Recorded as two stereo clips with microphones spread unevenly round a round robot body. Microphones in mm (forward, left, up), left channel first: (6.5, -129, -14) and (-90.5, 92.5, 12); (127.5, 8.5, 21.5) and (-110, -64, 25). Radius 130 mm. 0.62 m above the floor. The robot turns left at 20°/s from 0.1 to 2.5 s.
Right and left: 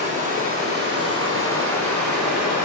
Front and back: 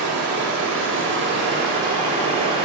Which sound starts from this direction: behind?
Running water, at 0.0 s.